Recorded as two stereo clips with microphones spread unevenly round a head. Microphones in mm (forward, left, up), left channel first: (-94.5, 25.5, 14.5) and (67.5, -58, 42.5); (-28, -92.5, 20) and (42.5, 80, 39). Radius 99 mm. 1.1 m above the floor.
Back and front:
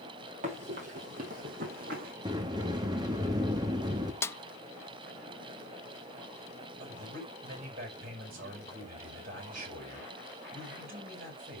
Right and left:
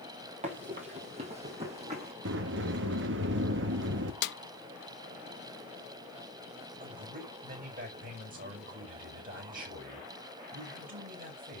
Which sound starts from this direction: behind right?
A snare drum, at 4.2 s.